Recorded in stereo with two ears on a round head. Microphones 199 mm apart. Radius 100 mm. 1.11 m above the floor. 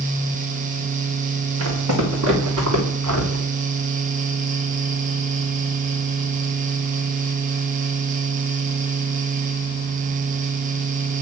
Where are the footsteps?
70° right (ahead or behind), 5.5 m; by 3.5 s 75° right (ahead or behind), 6.5 m.